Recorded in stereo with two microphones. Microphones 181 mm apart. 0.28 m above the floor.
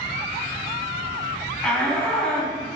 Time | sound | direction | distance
1.6 | a shout | 5° left (ahead or behind) | 2.5 m